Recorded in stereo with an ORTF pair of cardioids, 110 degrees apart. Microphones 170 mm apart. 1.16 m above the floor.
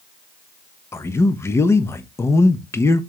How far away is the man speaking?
About 0.6 m.